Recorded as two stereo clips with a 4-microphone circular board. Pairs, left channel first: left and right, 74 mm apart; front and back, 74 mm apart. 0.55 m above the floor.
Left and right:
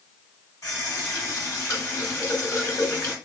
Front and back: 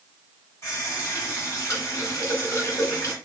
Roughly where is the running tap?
Ahead left.